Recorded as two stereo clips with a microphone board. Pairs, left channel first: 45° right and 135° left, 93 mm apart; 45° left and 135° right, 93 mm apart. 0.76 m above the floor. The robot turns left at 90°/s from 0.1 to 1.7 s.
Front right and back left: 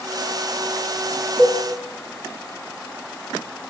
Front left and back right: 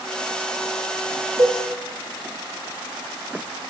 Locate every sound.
1.4 s a cowbell: 110° right, 4.5 m; by 1.6 s 125° right, 4.5 m